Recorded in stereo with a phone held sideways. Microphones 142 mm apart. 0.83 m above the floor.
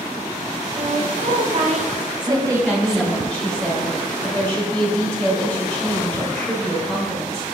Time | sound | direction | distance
0.8 | a woman speaking | 75° right (ahead or behind) | 1.7 m
2.2 | a woman speaking | 5° left (ahead or behind) | 3.5 m